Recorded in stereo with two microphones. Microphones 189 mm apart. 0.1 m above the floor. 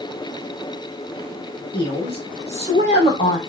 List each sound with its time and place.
1.7 s a woman speaking: 30° left (ahead or behind), 5 m; by 3.4 s 40° left (ahead or behind), 5 m